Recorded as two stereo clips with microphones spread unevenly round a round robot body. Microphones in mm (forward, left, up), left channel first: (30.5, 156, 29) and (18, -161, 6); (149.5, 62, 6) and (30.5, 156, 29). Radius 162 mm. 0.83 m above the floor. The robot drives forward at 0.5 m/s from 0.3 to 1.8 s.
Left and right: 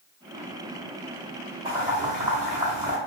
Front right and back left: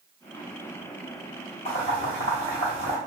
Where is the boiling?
170° right, 1.1 m.